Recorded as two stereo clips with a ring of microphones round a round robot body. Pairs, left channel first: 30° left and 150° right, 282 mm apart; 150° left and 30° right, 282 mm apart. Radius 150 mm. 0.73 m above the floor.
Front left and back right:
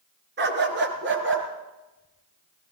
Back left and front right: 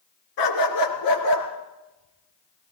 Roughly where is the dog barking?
Behind left.